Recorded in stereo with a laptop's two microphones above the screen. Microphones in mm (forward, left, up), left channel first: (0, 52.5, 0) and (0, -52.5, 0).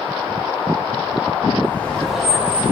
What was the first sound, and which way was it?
Laughter, 20° left (ahead or behind).